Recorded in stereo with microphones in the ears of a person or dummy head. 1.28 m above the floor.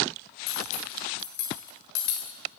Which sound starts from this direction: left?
Cutlery clinking, at 0.5 s.